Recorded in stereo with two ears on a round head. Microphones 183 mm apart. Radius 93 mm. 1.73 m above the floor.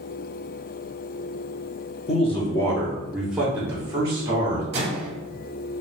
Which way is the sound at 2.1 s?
30° left (ahead or behind).